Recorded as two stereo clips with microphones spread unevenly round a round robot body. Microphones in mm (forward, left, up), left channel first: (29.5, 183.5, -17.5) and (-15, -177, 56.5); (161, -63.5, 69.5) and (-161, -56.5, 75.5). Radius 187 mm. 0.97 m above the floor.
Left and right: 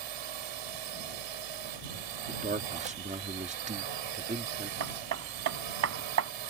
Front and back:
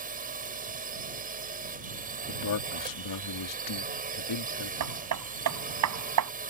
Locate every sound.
0.0 s a drone: 115° right
2.3 s a man speaking: 25° right
4.8 s hammering: 145° right